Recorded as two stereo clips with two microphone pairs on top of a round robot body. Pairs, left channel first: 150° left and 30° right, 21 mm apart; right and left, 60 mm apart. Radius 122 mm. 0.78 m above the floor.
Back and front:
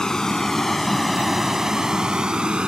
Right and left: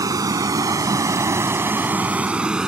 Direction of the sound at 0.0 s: 90° left.